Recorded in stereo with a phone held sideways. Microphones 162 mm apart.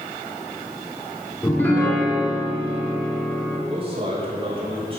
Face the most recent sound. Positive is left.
turn(degrees=-35)  # may be behind; listen again after turning